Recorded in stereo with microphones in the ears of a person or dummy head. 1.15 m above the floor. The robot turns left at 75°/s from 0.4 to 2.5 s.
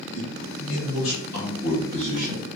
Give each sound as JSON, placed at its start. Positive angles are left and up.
{"t": 0.1, "sound": "a man speaking", "azimuth_deg": 85, "distance_m": 2.0}